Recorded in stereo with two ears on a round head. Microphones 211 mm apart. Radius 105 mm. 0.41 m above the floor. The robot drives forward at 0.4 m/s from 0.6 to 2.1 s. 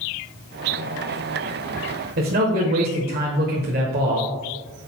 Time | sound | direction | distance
2.2 | a man speaking | 40° right (ahead or behind) | 1.4 m